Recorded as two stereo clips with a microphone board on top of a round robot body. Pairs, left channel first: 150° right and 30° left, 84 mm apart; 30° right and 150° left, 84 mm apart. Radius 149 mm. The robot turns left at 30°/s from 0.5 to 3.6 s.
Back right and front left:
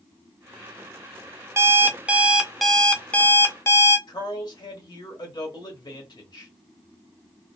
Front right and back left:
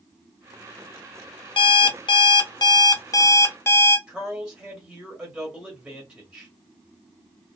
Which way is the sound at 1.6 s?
30° right.